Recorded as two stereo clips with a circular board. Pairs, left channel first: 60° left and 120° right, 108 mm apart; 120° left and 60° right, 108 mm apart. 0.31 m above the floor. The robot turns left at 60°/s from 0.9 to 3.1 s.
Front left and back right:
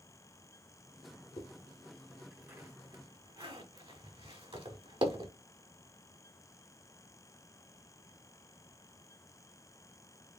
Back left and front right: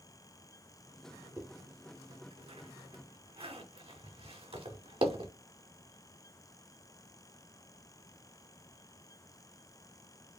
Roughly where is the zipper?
Ahead.